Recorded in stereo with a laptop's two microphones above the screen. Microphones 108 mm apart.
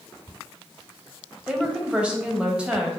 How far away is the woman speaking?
About 0.9 m.